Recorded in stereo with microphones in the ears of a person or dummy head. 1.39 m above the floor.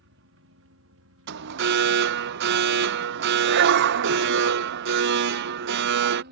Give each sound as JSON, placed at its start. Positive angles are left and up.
{"t": 0.0, "sound": "a helicopter", "side_deg": -60}
{"t": 1.3, "sound": "an alarm", "side_deg": -60}